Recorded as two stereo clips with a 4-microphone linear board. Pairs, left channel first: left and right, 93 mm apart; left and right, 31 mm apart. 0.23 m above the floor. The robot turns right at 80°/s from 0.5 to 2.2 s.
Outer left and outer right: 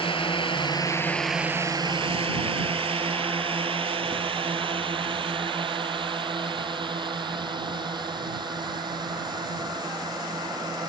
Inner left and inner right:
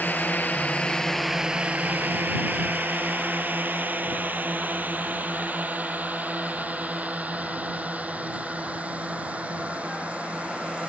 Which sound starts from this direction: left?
A drone, at 0.0 s.